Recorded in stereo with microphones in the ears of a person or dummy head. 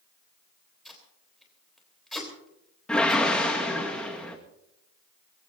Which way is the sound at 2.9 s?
5° left (ahead or behind).